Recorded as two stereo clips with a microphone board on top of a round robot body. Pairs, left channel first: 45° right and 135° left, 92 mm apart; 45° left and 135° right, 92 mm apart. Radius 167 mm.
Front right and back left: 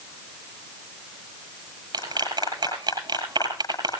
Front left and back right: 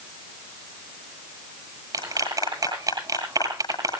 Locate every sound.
1.9 s a clap: 175° left, 8.5 m